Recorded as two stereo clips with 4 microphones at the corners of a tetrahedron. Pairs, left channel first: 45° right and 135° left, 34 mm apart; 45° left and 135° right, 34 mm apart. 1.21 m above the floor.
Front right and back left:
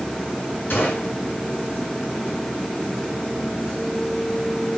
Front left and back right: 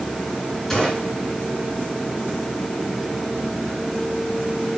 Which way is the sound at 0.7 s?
30° right.